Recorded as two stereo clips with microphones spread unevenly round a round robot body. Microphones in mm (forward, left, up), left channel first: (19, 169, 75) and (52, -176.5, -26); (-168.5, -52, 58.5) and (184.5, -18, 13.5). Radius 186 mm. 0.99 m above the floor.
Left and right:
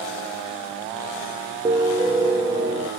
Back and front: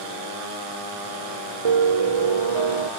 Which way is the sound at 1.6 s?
Straight ahead.